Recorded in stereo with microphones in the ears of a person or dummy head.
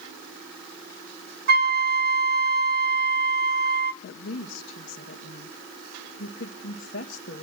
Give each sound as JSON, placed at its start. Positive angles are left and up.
{"t": 1.5, "sound": "a flute", "side_deg": -50, "distance_m": 0.6}
{"t": 4.0, "sound": "a woman speaking", "side_deg": 50, "distance_m": 1.6}